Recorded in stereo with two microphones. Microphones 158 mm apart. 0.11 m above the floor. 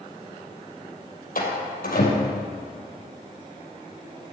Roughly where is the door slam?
Left.